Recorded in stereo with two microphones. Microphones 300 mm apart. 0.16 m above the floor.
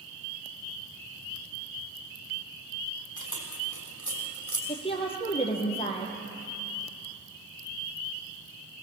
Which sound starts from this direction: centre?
A woman speaking, at 4.7 s.